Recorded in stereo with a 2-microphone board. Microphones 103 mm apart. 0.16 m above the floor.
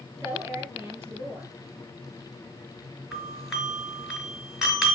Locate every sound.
0.2 s a woman speaking: 25° right (ahead or behind), 3.5 m
3.1 s a doorbell: centre (ahead or behind), 2.5 m